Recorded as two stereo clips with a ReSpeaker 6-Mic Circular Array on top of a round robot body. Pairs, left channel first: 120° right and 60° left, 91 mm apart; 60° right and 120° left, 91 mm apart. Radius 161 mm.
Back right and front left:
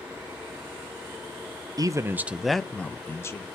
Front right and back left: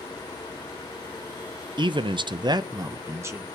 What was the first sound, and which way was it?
A man speaking, 100° left.